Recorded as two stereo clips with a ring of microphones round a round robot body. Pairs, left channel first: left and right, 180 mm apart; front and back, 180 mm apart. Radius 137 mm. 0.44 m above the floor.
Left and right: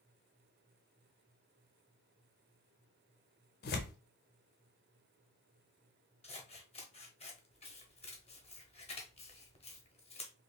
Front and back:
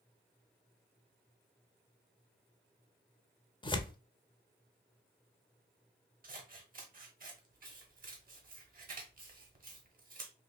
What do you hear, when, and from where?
3.6 s tearing paper: 65° left, 0.7 m
6.2 s scissors: 145° left, 1.3 m